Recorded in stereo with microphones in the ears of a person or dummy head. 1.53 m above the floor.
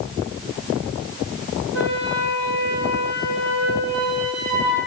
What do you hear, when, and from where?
1.7 s a flute: 65° right (ahead or behind), 1.8 m